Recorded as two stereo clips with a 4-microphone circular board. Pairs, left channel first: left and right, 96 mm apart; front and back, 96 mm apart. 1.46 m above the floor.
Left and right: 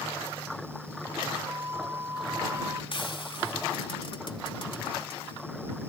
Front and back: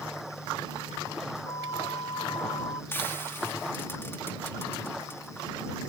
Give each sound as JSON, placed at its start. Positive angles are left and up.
{"t": 1.4, "sound": "a flute", "azimuth_deg": -30}
{"t": 2.9, "sound": "frying", "azimuth_deg": 65}